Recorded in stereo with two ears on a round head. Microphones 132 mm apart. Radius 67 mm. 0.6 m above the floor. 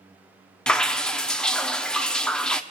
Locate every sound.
0.7 s dripping: 5° left (ahead or behind), 0.6 m